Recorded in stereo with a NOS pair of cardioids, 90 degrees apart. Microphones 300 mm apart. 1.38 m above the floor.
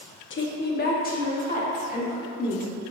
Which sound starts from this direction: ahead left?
A woman speaking, at 0.3 s.